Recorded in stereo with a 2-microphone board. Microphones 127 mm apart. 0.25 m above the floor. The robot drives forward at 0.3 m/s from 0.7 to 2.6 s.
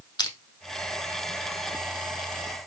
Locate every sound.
0.2 s crushing: 35° left (ahead or behind), 0.7 m